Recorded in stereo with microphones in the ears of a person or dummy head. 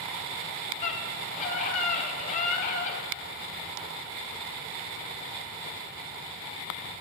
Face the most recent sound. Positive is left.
turn(degrees=45)  # may be behind; listen again after turning